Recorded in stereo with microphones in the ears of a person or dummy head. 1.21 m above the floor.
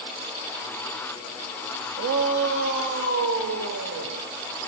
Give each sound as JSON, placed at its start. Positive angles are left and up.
{"t": 2.0, "sound": "a shout", "side_deg": -60, "distance_m": 1.9}